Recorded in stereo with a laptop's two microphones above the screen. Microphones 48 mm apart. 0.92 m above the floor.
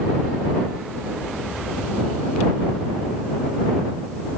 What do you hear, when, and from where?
Only background noise.